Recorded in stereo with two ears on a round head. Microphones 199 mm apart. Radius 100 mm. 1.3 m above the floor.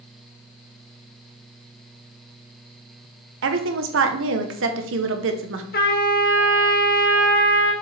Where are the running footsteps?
No running footsteps in this recording.